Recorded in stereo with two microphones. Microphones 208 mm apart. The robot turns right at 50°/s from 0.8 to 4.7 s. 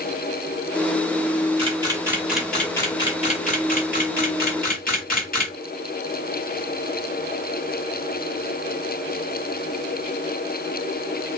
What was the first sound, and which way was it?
A camera shutter, 30° right (ahead or behind).